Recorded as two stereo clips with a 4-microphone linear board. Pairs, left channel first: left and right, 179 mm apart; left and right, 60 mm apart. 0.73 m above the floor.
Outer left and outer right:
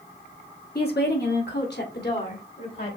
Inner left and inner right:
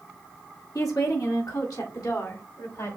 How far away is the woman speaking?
About 1.5 m.